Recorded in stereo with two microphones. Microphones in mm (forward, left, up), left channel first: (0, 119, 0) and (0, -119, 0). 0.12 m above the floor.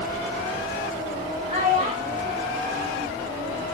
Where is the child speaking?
25° right (ahead or behind), 7.5 m; by 3.6 s 15° right (ahead or behind), 9 m.